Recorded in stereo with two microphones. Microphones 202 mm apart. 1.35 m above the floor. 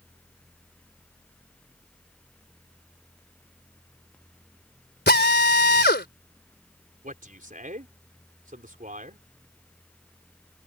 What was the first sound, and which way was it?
A drill, 55° left (ahead or behind).